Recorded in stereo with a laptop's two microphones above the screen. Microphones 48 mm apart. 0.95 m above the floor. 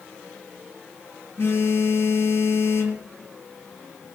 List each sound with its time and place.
1.4 s a phone buzzing: 55° left (ahead or behind), 2.5 m